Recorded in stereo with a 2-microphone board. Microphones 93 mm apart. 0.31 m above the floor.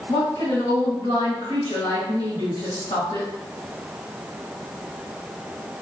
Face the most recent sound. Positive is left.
turn(degrees=40)  # may be behind; listen again after turning